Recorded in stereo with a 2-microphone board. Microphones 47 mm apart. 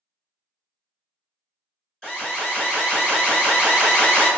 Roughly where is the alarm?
Centre.